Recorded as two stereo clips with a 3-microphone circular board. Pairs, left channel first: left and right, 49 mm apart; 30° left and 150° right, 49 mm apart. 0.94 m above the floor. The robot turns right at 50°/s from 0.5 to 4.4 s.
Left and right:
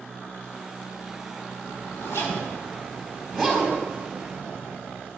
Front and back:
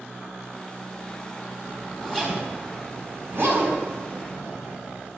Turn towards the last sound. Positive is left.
turn(degrees=-140)